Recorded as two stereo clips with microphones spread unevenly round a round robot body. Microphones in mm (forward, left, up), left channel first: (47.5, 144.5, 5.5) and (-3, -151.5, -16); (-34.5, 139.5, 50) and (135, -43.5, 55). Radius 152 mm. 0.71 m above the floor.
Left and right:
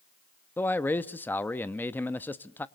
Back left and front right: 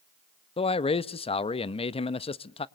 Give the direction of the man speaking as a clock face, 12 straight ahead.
7 o'clock.